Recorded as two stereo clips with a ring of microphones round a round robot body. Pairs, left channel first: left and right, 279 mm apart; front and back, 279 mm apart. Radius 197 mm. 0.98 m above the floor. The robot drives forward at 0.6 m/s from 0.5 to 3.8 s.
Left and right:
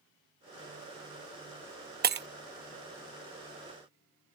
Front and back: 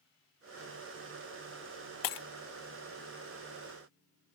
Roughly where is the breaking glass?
Ahead right.